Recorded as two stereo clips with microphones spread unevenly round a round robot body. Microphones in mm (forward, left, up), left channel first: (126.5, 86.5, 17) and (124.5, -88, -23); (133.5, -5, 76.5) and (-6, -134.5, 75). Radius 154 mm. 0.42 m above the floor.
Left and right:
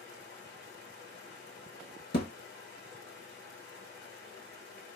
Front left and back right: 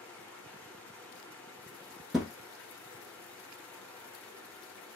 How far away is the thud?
About 0.8 m.